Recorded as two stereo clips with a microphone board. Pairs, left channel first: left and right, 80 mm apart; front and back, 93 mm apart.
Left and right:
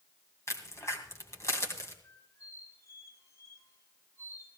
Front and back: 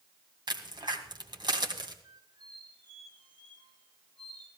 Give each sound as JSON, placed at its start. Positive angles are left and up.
{"t": 0.5, "sound": "a crack", "azimuth_deg": 145, "distance_m": 2.0}
{"t": 2.0, "sound": "a squeak", "azimuth_deg": 140, "distance_m": 3.5}